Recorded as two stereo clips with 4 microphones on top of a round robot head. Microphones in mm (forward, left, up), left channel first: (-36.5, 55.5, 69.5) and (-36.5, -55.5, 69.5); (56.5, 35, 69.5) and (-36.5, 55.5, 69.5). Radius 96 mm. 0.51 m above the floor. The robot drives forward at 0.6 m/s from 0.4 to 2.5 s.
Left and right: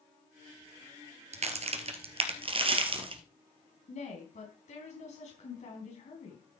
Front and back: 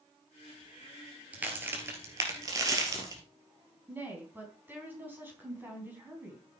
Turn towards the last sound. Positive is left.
turn(degrees=100)